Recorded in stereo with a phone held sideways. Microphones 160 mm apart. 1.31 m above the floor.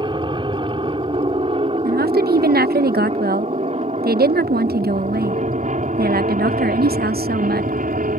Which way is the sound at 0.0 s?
30° right (ahead or behind).